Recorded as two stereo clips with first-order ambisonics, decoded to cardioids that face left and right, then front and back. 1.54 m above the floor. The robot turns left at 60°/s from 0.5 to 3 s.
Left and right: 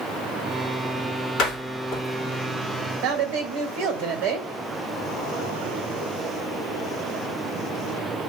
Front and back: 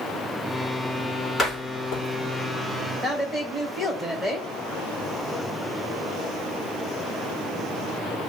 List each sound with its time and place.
1.4 s a door slam: 65° left, 1.8 m; by 2.0 s 30° left, 1.8 m
3.0 s a woman speaking: 80° right, 2 m